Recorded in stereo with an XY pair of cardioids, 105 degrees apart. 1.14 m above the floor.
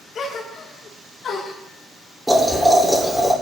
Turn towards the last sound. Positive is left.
turn(degrees=-10)